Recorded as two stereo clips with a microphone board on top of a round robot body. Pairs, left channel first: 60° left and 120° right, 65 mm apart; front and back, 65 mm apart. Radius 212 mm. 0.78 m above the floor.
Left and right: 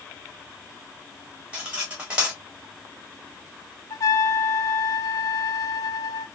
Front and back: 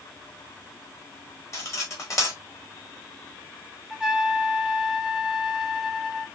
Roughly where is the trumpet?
Left.